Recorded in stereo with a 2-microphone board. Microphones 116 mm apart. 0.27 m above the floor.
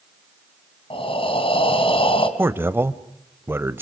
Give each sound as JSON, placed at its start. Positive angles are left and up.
{"t": 0.9, "sound": "breathing", "side_deg": 50, "distance_m": 2.5}
{"t": 2.4, "sound": "a man speaking", "side_deg": -20, "distance_m": 0.9}